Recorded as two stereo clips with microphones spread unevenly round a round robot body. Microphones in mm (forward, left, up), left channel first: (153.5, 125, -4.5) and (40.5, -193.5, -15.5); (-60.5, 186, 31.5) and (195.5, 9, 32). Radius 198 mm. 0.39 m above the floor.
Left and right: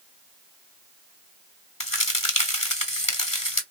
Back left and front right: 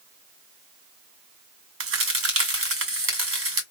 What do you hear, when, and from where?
1.8 s a crack: straight ahead, 2.5 m